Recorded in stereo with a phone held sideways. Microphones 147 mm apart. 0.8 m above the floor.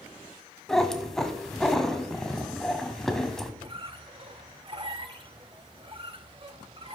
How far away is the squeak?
About 0.7 m.